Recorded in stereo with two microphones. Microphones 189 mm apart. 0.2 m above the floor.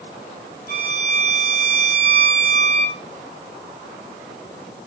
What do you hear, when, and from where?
0.7 s a violin: 55° right (ahead or behind), 1.3 m